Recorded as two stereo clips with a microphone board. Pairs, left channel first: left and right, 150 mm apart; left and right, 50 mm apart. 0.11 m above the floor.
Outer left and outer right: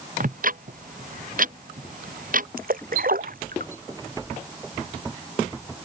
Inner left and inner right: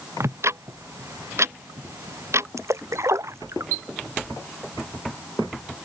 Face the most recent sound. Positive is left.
turn(degrees=-80)